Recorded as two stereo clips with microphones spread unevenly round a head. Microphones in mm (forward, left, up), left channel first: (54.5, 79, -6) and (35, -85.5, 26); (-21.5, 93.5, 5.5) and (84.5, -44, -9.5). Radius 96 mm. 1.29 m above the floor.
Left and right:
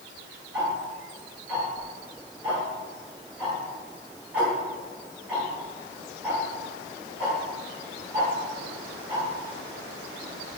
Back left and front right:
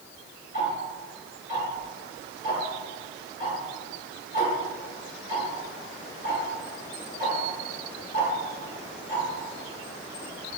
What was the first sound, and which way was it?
Ticking, straight behind.